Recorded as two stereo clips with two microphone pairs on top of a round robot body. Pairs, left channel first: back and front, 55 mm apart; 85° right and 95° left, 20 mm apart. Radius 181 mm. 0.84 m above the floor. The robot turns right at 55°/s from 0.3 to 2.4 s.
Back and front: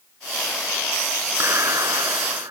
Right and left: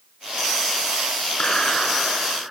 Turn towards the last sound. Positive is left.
turn(degrees=15)